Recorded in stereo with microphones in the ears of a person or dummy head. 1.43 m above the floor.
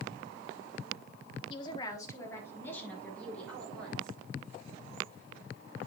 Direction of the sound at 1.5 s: 30° left (ahead or behind).